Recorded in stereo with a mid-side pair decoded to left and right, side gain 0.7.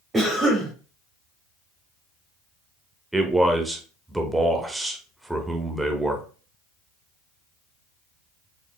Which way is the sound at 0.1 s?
20° right.